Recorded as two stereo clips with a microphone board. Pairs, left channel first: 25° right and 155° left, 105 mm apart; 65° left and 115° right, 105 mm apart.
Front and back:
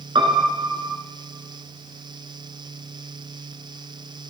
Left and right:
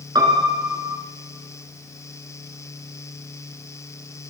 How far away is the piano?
About 1.5 m.